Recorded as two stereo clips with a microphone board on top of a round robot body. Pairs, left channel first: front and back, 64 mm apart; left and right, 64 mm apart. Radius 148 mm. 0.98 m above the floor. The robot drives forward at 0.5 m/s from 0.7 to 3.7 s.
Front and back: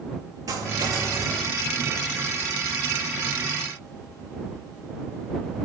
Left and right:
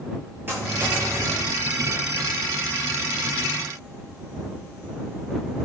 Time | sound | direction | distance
0.5 | a dropped coin | 150° right | 8.5 m